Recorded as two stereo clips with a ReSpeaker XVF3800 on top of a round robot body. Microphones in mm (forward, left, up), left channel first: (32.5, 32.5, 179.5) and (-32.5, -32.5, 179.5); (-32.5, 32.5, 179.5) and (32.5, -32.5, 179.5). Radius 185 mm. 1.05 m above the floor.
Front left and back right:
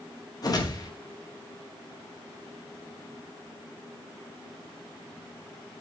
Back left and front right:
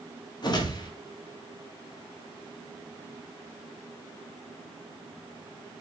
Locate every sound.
0.4 s a whoosh: 95° left, 1.5 m